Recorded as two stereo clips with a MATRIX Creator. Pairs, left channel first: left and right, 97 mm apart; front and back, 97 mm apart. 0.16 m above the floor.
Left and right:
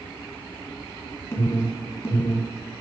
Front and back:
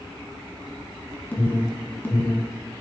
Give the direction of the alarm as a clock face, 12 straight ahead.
10 o'clock.